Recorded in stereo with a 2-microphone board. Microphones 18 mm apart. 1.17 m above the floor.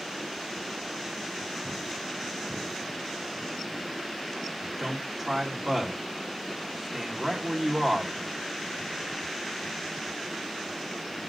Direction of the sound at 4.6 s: 5° left (ahead or behind).